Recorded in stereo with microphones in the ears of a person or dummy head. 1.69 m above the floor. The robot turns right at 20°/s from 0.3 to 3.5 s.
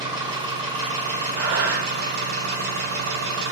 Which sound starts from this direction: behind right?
An engine running, at 0.0 s.